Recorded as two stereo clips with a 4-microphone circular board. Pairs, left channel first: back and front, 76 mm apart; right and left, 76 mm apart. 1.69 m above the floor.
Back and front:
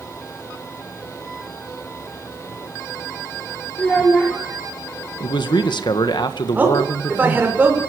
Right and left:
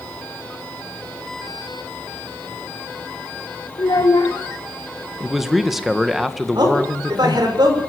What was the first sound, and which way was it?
A child speaking, 105° right.